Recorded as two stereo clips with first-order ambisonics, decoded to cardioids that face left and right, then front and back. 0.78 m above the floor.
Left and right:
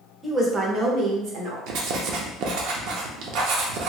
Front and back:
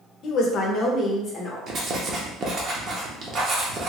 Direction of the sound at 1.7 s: 120° right.